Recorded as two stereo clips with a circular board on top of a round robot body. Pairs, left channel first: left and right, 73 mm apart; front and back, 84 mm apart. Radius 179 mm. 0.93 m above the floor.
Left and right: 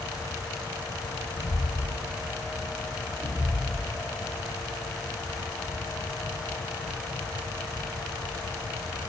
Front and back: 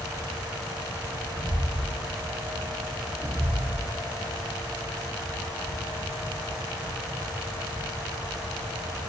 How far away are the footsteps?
About 1.7 m.